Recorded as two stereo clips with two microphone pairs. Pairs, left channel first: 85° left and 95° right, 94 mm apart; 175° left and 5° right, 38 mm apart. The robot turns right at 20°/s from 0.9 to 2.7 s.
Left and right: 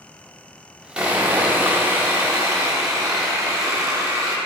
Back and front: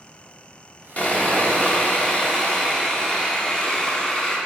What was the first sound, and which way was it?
Sawing, 165° right.